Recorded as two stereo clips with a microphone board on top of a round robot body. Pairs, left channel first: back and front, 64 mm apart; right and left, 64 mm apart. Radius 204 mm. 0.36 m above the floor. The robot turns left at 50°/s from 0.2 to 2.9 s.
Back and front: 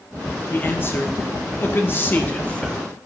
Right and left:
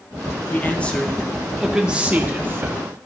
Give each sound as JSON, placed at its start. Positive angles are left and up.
{"t": 0.5, "sound": "a man speaking", "azimuth_deg": -135, "distance_m": 1.6}